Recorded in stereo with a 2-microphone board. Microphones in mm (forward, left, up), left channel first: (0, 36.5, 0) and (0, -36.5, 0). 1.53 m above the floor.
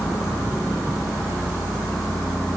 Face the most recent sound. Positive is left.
No sound to turn to.